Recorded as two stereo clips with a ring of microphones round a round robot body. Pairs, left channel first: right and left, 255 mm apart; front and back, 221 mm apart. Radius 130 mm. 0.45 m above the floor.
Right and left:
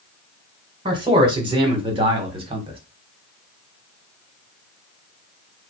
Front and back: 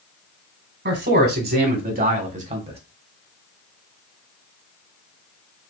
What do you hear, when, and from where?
0.8 s a man speaking: 160° left, 2 m; by 2.8 s 140° left, 1.5 m